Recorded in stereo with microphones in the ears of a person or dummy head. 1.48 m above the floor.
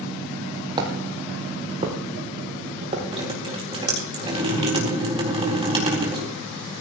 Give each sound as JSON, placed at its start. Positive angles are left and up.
{"t": 0.8, "sound": "footsteps", "side_deg": -25, "distance_m": 3.5}
{"t": 3.1, "sound": "dripping", "side_deg": -25, "distance_m": 4.0}